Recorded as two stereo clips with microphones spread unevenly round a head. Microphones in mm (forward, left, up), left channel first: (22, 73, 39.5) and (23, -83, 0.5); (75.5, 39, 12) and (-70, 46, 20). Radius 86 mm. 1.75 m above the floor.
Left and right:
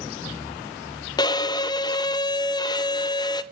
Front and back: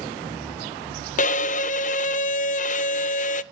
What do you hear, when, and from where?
1.2 s a violin: 30° left, 0.6 m